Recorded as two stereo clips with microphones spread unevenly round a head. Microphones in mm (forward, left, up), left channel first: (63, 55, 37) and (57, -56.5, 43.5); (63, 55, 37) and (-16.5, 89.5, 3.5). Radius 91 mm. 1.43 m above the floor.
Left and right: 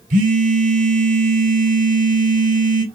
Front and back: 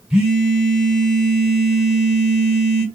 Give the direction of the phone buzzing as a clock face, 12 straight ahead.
4 o'clock.